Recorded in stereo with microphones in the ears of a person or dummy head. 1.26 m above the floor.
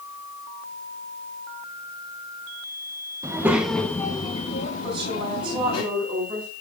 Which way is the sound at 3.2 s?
15° right (ahead or behind).